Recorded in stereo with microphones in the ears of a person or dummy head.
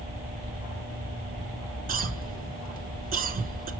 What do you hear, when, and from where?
1.9 s a cough: 50° right (ahead or behind), 1.0 m